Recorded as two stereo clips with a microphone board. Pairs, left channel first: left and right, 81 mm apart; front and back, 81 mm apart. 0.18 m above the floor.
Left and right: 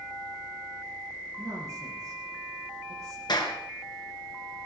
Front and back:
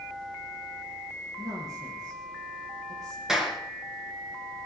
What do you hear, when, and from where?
1.4 s a woman speaking: 140° right, 6.5 m
3.3 s a clap: 95° left, 2.5 m